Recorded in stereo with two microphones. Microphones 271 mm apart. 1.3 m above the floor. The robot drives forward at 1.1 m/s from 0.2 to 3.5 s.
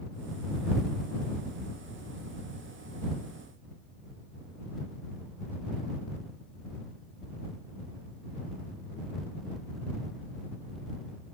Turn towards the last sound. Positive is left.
No sound to turn to.